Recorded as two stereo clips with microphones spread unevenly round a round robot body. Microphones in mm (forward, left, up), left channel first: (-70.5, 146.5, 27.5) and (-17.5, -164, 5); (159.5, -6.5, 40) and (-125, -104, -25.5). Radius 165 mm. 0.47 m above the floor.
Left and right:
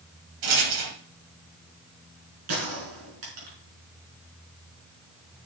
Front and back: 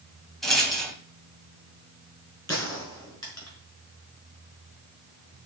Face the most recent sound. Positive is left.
turn(degrees=-65)